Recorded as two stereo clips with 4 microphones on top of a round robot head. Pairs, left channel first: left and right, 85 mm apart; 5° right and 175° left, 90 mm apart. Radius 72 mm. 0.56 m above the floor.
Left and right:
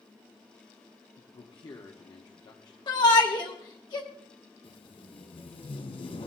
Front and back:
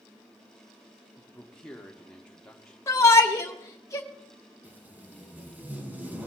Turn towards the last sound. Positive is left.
turn(degrees=105)